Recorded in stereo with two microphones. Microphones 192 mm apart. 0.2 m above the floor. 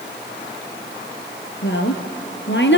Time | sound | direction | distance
1.6 | a woman speaking | 70° left (ahead or behind) | 3 m